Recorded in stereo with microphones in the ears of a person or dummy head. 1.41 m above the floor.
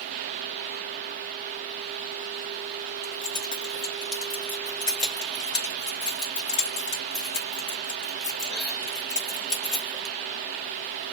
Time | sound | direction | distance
3.0 | keys jangling | 30° left (ahead or behind) | 1.6 m